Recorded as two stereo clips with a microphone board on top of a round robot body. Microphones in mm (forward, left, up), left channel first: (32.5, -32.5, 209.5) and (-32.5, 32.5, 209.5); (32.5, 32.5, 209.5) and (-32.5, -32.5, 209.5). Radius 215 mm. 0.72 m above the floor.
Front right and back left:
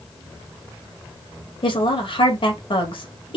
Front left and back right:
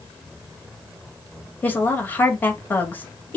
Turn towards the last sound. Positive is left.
turn(degrees=-25)